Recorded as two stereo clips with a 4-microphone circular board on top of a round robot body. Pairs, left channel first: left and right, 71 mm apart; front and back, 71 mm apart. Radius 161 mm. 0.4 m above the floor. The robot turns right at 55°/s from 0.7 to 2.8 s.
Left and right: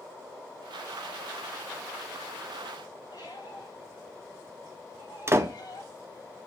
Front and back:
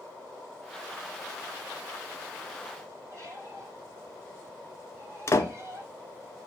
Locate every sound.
3.1 s a squeak: 125° left, 4.5 m
5.3 s a door slam: 40° right, 1.1 m